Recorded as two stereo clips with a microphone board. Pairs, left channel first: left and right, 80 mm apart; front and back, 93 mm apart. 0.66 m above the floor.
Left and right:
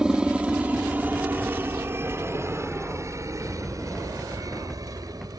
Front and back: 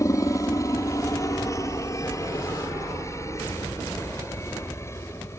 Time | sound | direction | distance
0.0 | a helicopter | 15° right | ?